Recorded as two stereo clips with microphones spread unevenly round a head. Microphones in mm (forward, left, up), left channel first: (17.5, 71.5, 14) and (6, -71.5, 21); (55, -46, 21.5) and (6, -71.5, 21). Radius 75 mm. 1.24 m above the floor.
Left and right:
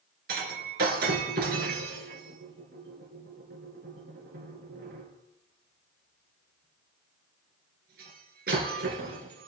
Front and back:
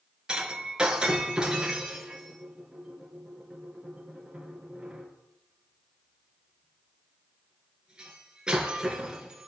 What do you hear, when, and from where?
0.3 s breaking glass: 75° right, 3 m